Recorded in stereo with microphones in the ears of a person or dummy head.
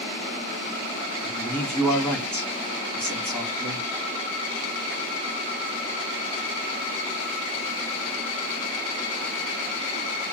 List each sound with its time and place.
1.2 s a man speaking: 5° left (ahead or behind), 1.2 m